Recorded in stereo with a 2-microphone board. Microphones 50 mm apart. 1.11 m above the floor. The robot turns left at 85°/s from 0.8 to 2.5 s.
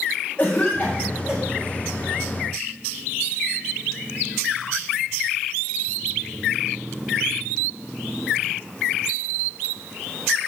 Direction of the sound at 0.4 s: 25° left (ahead or behind).